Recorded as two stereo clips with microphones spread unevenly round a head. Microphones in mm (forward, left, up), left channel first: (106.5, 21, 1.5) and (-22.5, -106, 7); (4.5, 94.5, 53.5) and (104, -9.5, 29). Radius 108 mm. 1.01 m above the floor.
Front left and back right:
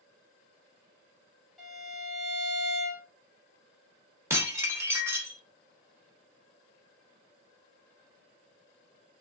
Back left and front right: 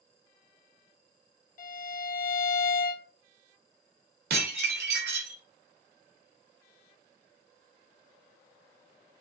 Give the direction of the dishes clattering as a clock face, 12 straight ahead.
2 o'clock.